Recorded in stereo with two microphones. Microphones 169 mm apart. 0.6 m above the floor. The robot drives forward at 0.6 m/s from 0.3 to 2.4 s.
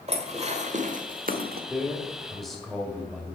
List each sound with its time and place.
0.1 s dishes clattering: 40° right (ahead or behind), 1.4 m; by 1.6 s 65° right (ahead or behind), 0.9 m
1.7 s a man speaking: centre (ahead or behind), 1.9 m